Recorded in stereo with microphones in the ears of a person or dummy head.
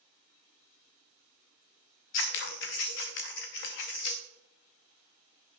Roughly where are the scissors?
Left.